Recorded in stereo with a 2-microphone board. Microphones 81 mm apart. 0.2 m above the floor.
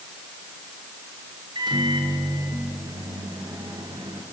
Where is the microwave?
65° right (ahead or behind), 3 m.